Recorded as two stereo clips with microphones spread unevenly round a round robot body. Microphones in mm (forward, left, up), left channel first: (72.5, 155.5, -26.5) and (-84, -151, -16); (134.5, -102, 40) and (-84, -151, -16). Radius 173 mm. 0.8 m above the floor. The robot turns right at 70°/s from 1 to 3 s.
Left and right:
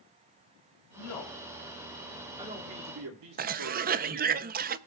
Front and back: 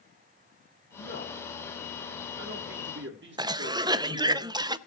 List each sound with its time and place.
0.9 s a man speaking: 70° left, 2.0 m; by 4.4 s 150° right, 2.0 m
3.4 s a cough: 160° right, 0.5 m